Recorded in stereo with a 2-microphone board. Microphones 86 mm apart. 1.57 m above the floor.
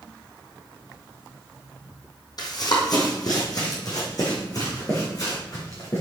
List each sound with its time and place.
2.4 s running footsteps: 50° left (ahead or behind), 2.5 m; by 6.0 s 40° left (ahead or behind), 5.5 m